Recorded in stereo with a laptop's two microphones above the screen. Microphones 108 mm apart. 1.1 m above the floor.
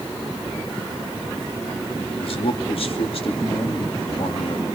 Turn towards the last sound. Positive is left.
turn(degrees=60)  # may be behind; listen again after turning